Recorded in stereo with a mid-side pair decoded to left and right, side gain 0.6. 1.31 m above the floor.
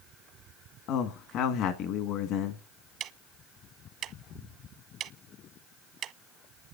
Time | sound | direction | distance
0.9 | a man speaking | 70° left | 1.6 m
3.0 | ticking | 55° right | 0.9 m